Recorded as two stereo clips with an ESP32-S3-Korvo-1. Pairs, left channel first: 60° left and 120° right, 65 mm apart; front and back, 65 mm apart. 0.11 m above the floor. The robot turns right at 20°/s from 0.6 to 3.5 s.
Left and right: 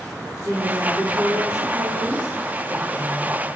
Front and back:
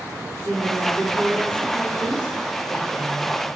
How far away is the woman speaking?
About 4.5 m.